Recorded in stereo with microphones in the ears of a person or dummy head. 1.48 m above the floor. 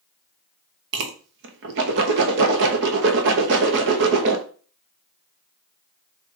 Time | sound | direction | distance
0.9 | a whoosh | 65° right (ahead or behind) | 0.9 m